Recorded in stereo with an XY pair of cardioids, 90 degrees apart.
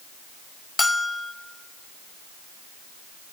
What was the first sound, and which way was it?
A bell, 25° left.